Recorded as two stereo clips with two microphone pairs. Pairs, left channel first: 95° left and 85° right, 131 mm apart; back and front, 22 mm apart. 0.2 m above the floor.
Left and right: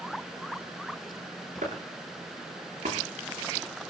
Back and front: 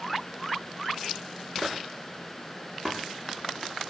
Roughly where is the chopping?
Right.